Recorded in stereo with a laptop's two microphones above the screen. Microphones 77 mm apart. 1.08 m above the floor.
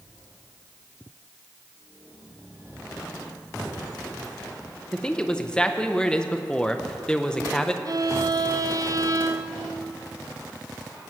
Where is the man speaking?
10° left (ahead or behind), 0.6 m.